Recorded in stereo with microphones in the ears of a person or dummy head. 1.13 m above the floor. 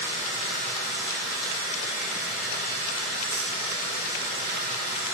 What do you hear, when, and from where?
0.0 s running water: 45° left (ahead or behind), 1.9 m